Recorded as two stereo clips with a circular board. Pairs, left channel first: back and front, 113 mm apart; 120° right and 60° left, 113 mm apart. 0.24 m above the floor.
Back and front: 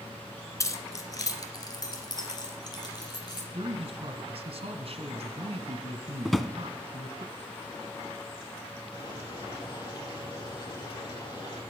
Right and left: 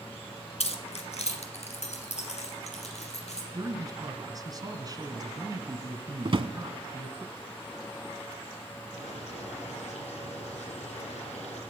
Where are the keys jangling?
120° right, 1.8 m; by 3.4 s 130° right, 4.5 m.